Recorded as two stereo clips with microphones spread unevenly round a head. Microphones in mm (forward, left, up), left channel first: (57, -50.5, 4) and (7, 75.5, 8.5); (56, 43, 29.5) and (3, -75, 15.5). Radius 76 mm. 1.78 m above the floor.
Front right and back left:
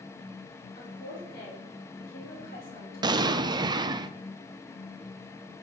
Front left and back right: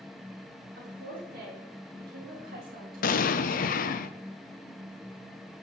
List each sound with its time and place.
0.8 s a woman speaking: 110° right, 4 m
3.0 s an explosion: 50° left, 0.7 m